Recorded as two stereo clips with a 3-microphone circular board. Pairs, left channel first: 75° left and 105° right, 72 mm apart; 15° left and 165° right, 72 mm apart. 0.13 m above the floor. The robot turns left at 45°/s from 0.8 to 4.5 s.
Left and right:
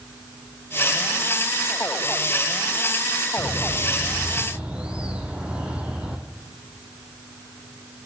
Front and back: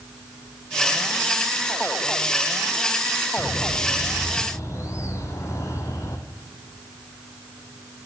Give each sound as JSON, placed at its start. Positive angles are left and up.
{"t": 3.4, "sound": "a bird", "azimuth_deg": 20, "distance_m": 1.4}